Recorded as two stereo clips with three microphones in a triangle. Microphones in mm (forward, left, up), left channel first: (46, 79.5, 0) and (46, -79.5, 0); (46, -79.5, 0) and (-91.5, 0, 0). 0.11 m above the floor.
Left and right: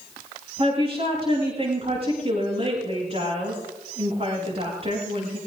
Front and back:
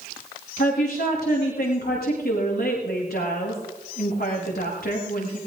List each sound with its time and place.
0.6 s a woman speaking: 40° right, 7.5 m